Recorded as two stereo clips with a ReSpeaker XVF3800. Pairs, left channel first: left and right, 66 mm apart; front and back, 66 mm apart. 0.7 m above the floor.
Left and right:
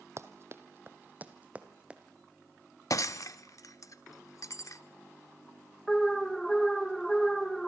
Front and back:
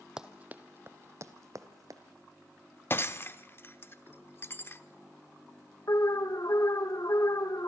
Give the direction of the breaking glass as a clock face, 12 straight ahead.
10 o'clock.